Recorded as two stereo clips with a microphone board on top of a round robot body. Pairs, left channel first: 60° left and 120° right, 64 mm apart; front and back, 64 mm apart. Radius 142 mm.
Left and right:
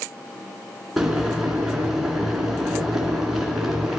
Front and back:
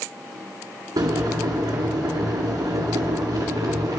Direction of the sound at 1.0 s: 155° left.